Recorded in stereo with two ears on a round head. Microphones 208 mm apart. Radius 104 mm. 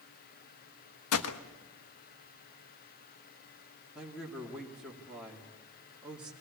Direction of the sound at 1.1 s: 70° left (ahead or behind).